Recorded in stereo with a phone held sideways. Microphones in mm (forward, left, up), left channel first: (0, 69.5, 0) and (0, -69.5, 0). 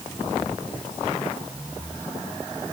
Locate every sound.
Only background noise.